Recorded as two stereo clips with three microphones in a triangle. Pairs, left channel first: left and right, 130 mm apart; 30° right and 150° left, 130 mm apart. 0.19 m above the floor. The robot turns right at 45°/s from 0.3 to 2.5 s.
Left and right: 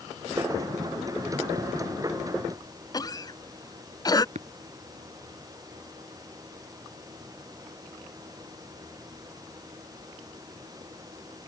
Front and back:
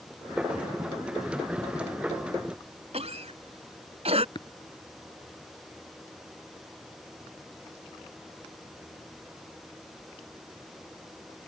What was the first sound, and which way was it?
A cough, 140° left.